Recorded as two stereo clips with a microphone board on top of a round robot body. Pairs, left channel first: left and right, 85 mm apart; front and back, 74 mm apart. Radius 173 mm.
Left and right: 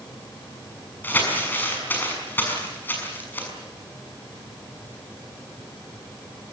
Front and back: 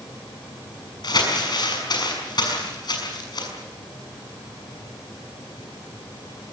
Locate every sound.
1.0 s crumpling: 20° left, 6.5 m